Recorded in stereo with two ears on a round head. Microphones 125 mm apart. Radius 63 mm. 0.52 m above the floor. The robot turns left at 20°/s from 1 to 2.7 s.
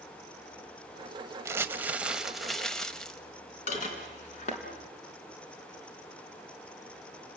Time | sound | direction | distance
1.4 | crumpling | 20° right (ahead or behind) | 1.0 m
3.7 | dishes clattering | 55° left (ahead or behind) | 4 m